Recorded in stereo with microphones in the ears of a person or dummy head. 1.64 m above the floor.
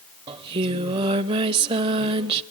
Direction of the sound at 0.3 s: 20° right (ahead or behind).